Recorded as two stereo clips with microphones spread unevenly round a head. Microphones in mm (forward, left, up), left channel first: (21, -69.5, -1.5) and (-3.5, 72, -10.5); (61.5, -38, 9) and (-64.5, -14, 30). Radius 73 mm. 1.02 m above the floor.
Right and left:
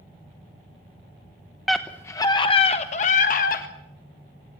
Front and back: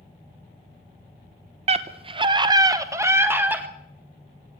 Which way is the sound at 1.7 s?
175° right.